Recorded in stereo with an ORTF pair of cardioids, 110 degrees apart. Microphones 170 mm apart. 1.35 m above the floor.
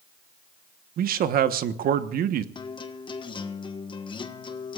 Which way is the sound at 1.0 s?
60° right.